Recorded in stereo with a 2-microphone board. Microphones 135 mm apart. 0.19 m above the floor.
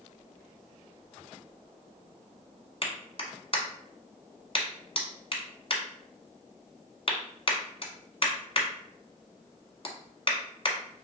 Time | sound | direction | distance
2.8 | a clap | 45° left (ahead or behind) | 1.2 m